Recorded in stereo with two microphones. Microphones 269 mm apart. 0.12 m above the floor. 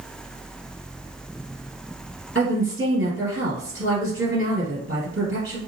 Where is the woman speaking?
45° right (ahead or behind), 2 m.